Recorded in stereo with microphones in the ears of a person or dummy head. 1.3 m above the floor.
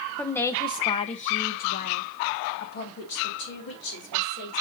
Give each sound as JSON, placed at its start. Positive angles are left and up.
{"t": 0.2, "sound": "a woman speaking", "side_deg": 5, "distance_m": 0.7}